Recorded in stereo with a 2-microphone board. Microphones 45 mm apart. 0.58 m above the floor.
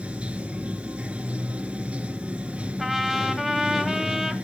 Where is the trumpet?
5° right (ahead or behind), 1.6 m.